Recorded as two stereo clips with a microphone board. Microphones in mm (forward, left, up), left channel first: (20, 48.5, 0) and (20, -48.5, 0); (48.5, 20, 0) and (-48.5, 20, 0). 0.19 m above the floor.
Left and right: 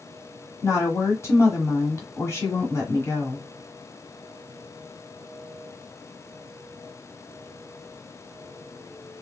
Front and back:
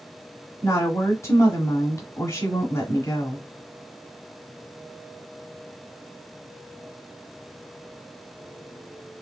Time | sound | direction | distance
0.6 | a woman speaking | 45° left | 1.7 m